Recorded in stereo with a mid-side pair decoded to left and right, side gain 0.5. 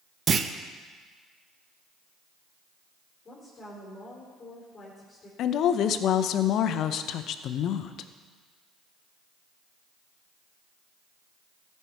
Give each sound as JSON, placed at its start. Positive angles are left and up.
{"t": 0.3, "sound": "a clunk", "azimuth_deg": -40, "distance_m": 0.6}
{"t": 3.2, "sound": "a woman speaking", "azimuth_deg": 30, "distance_m": 3.5}
{"t": 5.4, "sound": "a woman speaking", "azimuth_deg": 65, "distance_m": 0.6}